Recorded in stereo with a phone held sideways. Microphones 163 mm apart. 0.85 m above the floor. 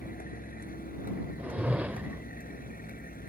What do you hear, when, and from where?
0.0 s a vehicle: 65° left (ahead or behind)
1.4 s a whoosh: 10° right (ahead or behind)